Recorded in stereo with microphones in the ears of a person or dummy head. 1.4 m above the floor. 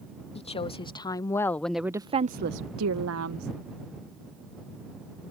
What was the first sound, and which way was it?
A woman speaking, 35° left (ahead or behind).